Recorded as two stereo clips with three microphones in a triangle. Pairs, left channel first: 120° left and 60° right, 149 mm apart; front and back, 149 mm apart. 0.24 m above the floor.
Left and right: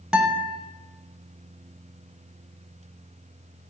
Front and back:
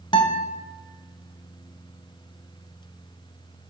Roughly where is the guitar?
Ahead.